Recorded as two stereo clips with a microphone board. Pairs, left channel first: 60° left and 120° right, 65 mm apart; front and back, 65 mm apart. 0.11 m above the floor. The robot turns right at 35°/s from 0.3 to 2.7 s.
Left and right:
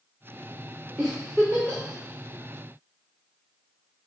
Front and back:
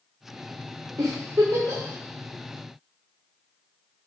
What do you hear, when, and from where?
1.0 s a giggle: 155° left, 3.5 m; by 1.8 s straight behind, 3.5 m